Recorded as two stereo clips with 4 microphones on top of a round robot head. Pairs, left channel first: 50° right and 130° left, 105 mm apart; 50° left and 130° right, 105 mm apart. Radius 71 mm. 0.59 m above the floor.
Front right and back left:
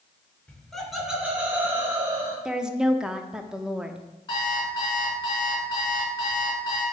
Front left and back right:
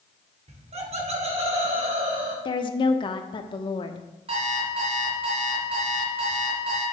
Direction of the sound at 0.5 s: 130° right.